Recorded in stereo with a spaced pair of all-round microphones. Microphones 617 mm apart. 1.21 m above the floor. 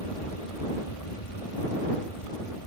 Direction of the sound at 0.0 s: 60° left (ahead or behind).